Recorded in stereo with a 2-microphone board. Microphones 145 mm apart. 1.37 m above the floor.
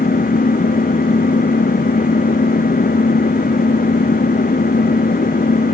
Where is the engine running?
85° left.